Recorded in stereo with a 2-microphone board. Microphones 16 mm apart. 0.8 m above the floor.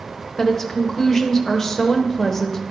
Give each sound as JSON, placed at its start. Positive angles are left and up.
{"t": 0.4, "sound": "a woman speaking", "side_deg": 25, "distance_m": 0.7}